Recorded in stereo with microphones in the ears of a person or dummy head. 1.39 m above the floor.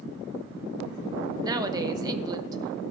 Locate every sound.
1.4 s a woman speaking: 25° right (ahead or behind), 1.1 m